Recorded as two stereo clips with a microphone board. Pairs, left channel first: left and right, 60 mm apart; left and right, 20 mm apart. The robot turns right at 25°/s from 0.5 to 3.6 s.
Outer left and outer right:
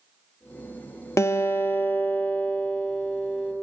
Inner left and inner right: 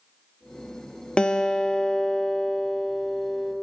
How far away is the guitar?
About 0.5 m.